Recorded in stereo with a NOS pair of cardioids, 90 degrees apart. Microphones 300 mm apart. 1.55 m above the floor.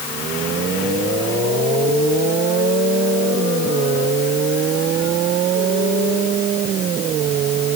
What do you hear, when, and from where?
Only background noise.